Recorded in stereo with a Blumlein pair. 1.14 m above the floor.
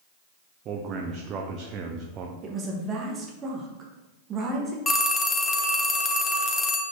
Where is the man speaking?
30° right, 0.5 m.